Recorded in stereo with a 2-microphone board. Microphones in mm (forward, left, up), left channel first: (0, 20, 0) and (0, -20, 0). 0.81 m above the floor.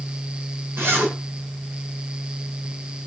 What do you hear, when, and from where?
0.8 s a zipper: 85° right, 4.5 m